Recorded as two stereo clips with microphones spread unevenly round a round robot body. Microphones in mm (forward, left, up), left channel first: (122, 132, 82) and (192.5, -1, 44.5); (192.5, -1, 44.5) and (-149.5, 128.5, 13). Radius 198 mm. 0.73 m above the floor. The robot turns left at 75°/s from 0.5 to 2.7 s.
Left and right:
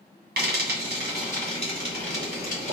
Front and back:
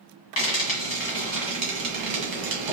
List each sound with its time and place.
0.4 s frying: 45° right, 1.9 m; by 2.7 s 150° left, 1.9 m